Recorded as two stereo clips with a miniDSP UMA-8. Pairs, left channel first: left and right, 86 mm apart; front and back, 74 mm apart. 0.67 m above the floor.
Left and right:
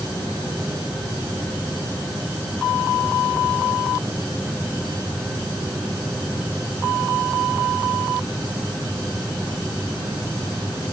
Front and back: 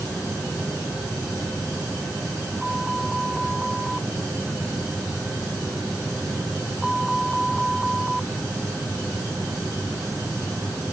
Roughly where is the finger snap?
No finger snap in this recording.